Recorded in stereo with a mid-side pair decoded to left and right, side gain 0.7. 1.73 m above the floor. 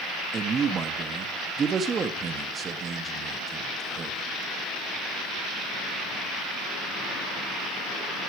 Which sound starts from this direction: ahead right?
A man speaking, at 0.3 s.